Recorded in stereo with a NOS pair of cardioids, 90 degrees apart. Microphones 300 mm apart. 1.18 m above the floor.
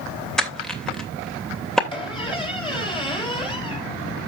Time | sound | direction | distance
0.4 | crushing | straight ahead | 2.5 m
1.9 | a squeak | 15° left | 3.5 m